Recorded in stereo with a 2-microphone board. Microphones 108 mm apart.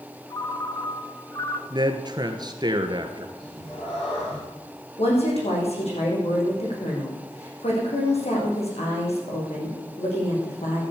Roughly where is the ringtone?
Left.